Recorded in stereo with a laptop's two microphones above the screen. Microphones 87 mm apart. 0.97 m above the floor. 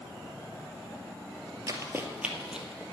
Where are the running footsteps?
40° right (ahead or behind), 1.3 m; by 2.8 s centre (ahead or behind), 1.9 m.